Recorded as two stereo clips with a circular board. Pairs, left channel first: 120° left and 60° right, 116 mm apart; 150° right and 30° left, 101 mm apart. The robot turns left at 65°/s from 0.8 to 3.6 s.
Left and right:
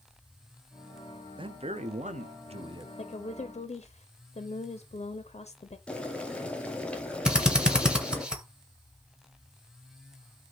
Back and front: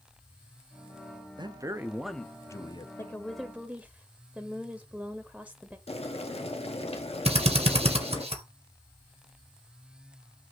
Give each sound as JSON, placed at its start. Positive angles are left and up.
{"t": 1.4, "sound": "a man speaking", "azimuth_deg": -15, "distance_m": 0.6}
{"t": 3.0, "sound": "a woman speaking", "azimuth_deg": 150, "distance_m": 0.5}
{"t": 5.9, "sound": "boiling", "azimuth_deg": -160, "distance_m": 0.8}
{"t": 7.2, "sound": "a drill", "azimuth_deg": 25, "distance_m": 1.0}